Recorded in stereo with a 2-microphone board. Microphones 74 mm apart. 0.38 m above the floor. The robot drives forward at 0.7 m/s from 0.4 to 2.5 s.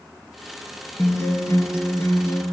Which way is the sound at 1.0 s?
30° left (ahead or behind).